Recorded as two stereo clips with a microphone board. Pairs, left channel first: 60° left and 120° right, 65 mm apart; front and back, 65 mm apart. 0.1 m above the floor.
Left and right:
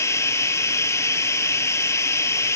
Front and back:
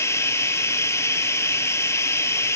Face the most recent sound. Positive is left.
turn(degrees=30)